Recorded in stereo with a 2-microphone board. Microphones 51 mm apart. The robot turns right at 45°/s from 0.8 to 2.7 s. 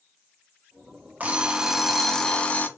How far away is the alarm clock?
About 0.6 m.